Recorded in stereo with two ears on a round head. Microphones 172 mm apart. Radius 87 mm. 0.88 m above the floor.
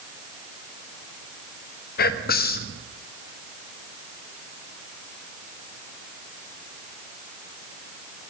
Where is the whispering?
50° left (ahead or behind), 1.0 m.